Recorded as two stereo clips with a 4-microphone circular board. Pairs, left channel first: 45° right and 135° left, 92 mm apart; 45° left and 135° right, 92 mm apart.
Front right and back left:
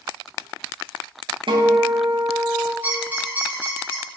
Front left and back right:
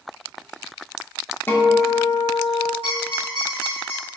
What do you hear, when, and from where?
1.5 s a guitar: 110° left, 0.7 m
2.8 s a squeak: 60° left, 1.4 m